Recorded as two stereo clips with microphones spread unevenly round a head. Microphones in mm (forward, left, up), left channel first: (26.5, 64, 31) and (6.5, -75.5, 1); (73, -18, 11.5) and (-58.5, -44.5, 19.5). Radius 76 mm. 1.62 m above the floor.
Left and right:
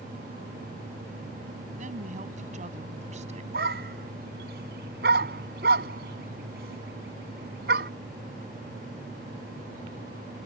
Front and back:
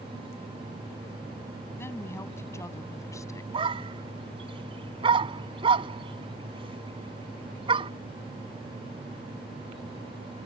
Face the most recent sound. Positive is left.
turn(degrees=-125)